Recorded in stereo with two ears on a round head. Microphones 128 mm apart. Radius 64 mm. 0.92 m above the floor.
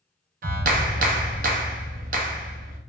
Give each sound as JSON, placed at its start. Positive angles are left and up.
{"t": 0.4, "sound": "a clap", "side_deg": -60, "distance_m": 0.5}